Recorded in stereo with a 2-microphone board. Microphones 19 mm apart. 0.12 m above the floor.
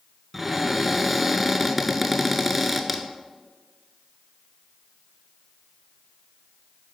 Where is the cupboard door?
10° right (ahead or behind), 0.7 m.